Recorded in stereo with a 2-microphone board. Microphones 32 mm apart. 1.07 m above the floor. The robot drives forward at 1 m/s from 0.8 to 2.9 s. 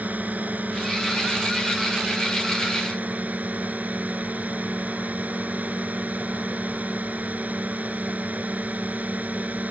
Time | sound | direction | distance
0.0 | a drone | 55° right (ahead or behind) | ?